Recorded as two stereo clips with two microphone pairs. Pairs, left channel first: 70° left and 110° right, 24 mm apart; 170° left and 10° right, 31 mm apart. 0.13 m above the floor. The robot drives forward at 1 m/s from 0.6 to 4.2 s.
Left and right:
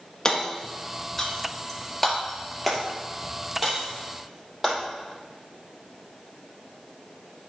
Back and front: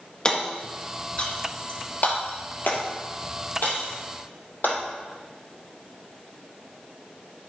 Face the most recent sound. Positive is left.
turn(degrees=165)